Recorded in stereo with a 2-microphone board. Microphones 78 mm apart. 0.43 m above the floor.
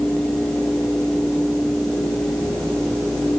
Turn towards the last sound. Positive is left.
No sound to turn to.